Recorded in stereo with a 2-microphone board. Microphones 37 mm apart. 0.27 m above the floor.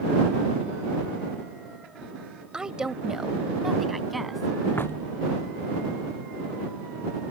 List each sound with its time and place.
2.5 s a woman speaking: 20° right (ahead or behind); by 4.7 s centre (ahead or behind)
4.8 s knocking: 70° left (ahead or behind)